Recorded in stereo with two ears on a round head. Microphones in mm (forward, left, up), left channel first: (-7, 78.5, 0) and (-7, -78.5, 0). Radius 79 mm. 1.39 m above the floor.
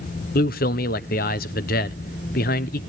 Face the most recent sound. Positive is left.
turn(degrees=55)  # may be behind; listen again after turning